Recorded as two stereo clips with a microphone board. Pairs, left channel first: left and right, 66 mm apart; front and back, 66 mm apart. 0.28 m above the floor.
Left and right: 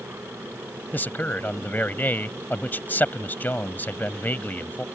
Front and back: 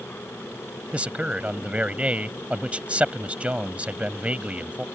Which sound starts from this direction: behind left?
A man speaking, at 0.9 s.